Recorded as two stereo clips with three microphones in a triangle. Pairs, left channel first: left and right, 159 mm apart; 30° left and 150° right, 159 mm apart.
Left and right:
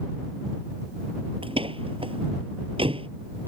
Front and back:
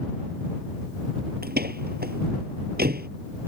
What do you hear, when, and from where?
1.4 s a door slam: 145° right